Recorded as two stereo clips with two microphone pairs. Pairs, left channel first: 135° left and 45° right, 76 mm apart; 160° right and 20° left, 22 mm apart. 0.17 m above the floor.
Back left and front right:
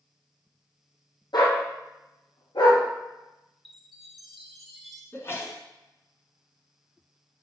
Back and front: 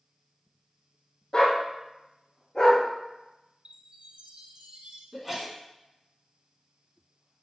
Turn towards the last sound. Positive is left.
turn(degrees=100)